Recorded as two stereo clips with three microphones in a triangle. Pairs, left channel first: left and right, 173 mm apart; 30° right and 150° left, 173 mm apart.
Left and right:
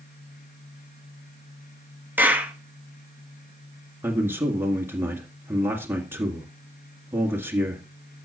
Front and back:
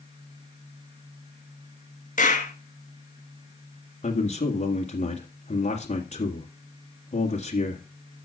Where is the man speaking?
20° right, 1.7 m.